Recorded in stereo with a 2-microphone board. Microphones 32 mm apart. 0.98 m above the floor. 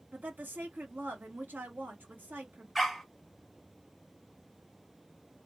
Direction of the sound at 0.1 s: 70° right (ahead or behind).